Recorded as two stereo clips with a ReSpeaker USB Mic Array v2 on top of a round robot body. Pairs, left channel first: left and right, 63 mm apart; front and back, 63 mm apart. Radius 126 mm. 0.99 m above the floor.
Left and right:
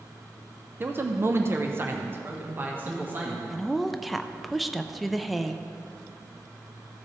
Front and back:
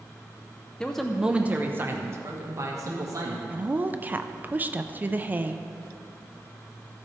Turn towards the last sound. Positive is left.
turn(degrees=180)